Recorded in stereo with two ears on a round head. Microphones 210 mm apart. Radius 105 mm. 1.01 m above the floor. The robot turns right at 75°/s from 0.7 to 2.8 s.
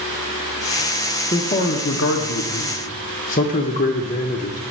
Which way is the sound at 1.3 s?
25° left.